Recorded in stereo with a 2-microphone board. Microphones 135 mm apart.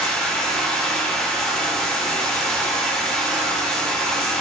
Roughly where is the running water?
Centre.